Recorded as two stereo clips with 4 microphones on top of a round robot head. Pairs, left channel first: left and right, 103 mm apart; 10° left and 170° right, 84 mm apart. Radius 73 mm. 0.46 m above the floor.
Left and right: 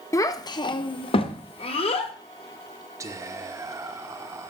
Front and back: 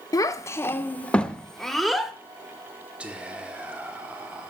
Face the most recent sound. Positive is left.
turn(degrees=-105)